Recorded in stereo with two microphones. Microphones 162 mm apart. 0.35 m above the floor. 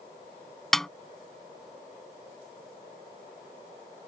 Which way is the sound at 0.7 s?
5° left (ahead or behind).